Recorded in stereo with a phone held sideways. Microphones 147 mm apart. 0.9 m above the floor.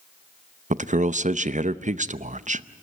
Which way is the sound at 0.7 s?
55° right (ahead or behind).